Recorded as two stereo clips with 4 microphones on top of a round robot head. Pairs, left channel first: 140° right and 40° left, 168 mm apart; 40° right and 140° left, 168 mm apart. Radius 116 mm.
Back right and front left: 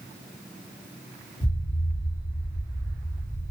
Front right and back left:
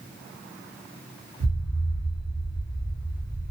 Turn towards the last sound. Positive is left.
turn(degrees=130)